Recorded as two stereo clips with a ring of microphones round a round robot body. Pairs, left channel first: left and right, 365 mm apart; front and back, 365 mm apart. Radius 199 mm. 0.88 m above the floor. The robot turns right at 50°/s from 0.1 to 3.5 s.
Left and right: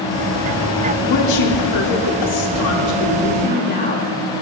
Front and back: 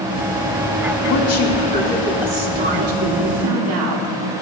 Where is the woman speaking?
35° left, 2 m; by 4.1 s 160° left, 2 m.